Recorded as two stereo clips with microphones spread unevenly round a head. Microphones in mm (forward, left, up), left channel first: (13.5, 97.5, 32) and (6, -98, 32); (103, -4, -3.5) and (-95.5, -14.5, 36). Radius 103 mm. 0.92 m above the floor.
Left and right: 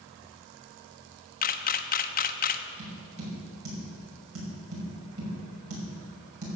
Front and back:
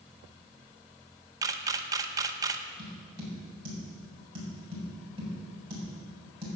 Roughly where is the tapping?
Right.